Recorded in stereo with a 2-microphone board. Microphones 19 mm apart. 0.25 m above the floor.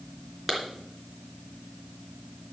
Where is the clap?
5° right (ahead or behind), 3.5 m.